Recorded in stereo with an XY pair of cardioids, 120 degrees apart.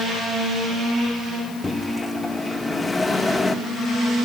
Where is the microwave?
20° left, 1.8 m.